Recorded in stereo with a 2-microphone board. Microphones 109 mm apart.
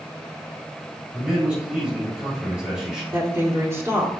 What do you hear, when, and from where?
1.1 s a man speaking: 10° right (ahead or behind), 4.5 m
3.1 s a woman speaking: 25° right (ahead or behind), 2.5 m